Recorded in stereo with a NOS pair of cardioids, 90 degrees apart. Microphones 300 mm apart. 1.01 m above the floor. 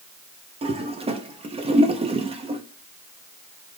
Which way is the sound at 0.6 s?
20° right.